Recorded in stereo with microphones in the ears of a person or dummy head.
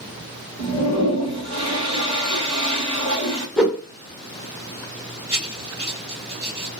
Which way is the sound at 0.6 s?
40° right (ahead or behind).